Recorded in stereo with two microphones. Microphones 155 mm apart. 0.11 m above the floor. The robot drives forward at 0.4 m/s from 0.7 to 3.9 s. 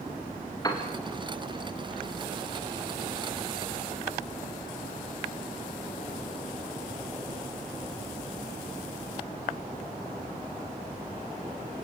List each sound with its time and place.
0.6 s a piano: 25° left (ahead or behind), 3.5 m